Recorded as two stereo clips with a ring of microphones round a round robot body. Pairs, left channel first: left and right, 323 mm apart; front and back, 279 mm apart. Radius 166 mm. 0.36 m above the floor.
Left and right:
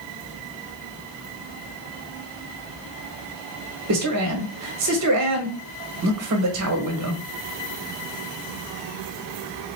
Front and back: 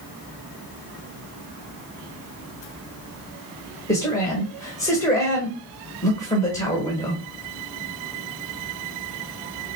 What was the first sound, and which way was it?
A man speaking, 75° right.